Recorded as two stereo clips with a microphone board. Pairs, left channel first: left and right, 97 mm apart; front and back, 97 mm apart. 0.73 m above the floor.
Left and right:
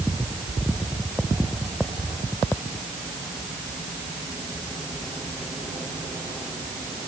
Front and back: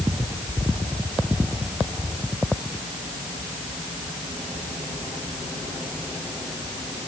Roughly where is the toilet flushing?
I don't hear a toilet flushing.